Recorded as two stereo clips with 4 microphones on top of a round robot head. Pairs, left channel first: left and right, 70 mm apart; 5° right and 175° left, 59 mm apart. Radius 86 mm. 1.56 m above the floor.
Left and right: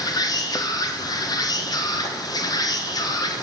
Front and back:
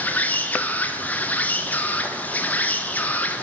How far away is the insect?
About 1.0 m.